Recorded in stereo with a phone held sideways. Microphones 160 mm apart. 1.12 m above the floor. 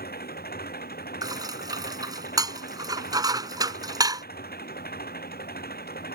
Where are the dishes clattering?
25° right (ahead or behind).